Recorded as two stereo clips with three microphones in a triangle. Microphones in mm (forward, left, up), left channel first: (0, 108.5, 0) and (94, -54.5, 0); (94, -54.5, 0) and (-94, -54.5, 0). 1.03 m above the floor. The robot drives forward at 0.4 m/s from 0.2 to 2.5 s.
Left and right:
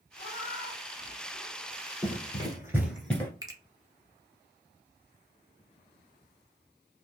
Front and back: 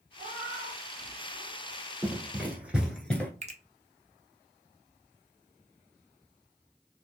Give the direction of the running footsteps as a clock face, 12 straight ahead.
3 o'clock.